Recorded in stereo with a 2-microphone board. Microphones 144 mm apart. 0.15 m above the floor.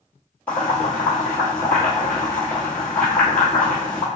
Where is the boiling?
10° left (ahead or behind), 1.2 m.